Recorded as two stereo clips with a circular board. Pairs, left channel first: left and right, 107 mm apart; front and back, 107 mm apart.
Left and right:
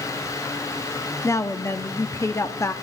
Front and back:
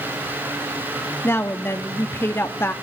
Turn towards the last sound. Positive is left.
turn(degrees=50)